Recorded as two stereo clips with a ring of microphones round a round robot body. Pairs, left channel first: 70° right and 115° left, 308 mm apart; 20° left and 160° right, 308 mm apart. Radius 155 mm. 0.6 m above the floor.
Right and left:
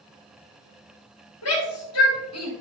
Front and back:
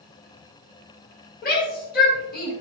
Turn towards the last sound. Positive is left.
turn(degrees=-35)